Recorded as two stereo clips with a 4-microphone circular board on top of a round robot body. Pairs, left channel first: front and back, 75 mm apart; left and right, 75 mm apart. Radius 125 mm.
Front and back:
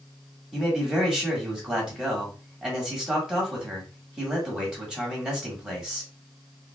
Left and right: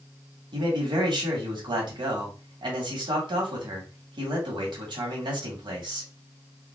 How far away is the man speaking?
About 1.9 m.